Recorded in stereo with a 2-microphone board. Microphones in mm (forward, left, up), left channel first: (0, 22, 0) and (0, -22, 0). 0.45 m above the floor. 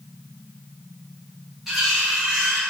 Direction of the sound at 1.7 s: 5° right (ahead or behind).